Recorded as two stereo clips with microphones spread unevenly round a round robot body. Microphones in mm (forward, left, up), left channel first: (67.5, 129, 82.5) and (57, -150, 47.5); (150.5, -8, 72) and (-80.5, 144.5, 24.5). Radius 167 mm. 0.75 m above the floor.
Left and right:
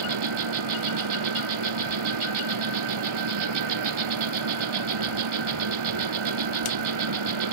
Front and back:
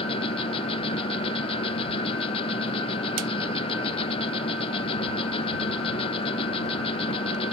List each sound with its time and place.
0.0 s an insect: 110° right